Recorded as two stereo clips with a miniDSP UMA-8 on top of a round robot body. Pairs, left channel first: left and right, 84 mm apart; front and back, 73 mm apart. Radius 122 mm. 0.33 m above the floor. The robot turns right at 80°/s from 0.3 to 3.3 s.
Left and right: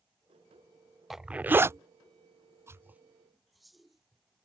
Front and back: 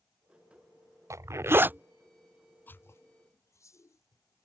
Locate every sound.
1.1 s a zipper: 175° right; by 4.5 s straight ahead